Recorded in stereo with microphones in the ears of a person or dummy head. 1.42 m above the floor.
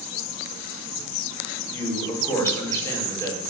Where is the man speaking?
20° left (ahead or behind), 4.5 m.